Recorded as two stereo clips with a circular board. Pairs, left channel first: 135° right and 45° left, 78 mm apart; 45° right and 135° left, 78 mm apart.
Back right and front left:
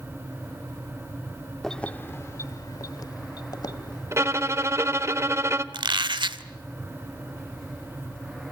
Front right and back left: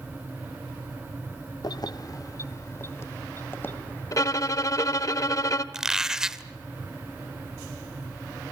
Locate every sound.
1.6 s keys jangling: 50° right, 0.6 m; by 5.1 s 115° right, 3 m
4.1 s a violin: 5° right, 1.0 m
5.7 s a squeak: 50° left, 0.8 m